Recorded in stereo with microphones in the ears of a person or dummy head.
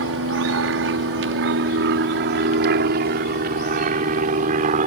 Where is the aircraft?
70° right (ahead or behind); by 4.9 s 40° right (ahead or behind).